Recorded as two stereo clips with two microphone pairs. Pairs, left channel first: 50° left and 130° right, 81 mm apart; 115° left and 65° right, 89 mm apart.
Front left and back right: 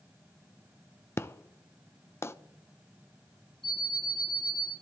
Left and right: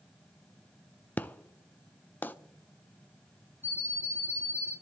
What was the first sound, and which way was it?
An explosion, 60° left.